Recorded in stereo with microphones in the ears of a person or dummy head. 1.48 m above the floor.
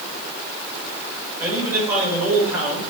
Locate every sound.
1.4 s a man speaking: 10° right (ahead or behind), 6.5 m